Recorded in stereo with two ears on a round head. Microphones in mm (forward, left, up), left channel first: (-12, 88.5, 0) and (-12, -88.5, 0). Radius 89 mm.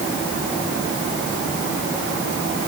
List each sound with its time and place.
Only background noise.